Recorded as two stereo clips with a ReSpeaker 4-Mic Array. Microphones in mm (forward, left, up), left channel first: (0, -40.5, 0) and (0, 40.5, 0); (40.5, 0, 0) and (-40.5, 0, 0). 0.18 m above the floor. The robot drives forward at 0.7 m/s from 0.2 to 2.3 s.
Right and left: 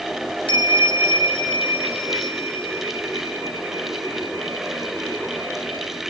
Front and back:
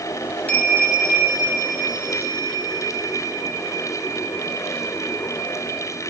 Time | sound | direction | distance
0.5 | a bell | 75° right | 1.3 m